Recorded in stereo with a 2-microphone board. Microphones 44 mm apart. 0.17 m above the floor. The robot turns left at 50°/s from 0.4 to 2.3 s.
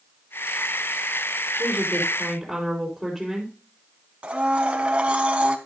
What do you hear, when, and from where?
1.6 s a woman speaking: 150° right, 3.5 m; by 3.6 s 175° left, 3.5 m
4.2 s a blender: 25° right (ahead or behind), 1.1 m